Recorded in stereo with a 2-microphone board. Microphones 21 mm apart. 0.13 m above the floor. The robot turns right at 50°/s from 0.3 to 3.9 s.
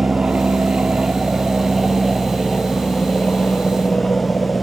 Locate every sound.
0.0 s an aircraft: 65° right (ahead or behind); by 4.6 s 65° left (ahead or behind)